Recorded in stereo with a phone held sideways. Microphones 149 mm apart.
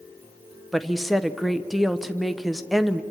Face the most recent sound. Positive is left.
turn(degrees=0)  # may be behind; listen again after turning